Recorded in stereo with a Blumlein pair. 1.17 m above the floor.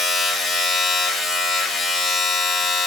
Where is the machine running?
20° left, 1.4 m.